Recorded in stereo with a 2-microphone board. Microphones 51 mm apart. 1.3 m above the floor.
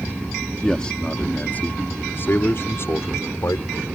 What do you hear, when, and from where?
0.6 s a man speaking: 15° left (ahead or behind); by 3.9 s 65° left (ahead or behind)